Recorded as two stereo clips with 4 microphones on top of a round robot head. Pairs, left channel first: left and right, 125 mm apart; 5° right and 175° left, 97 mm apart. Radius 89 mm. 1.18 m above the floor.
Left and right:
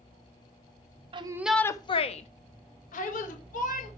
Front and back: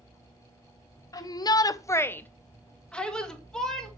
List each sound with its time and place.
1.1 s a shout: 50° right, 0.8 m; by 3.9 s 80° left, 3 m